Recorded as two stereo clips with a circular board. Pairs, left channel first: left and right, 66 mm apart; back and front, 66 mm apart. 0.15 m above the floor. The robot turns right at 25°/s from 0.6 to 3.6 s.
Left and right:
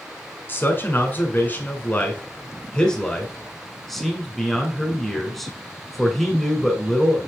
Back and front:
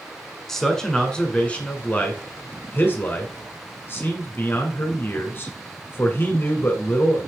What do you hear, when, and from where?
0.5 s a man speaking: 100° left, 1.5 m; by 7.2 s 175° left, 1.5 m